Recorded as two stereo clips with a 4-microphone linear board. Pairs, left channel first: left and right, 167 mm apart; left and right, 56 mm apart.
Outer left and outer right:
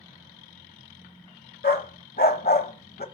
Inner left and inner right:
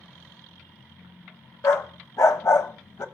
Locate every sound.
1.6 s a dog barking: 65° left (ahead or behind), 0.8 m